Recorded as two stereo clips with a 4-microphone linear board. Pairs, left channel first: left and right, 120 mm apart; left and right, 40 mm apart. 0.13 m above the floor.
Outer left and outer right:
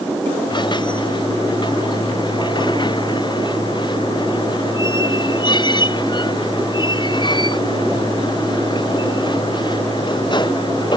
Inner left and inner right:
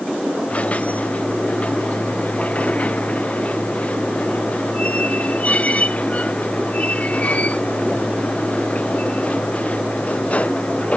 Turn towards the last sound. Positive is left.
turn(degrees=40)  # may be behind; listen again after turning